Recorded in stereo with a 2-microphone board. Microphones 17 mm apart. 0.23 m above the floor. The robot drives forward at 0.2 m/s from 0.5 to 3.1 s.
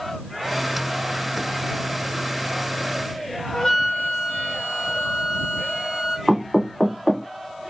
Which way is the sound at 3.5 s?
30° left (ahead or behind).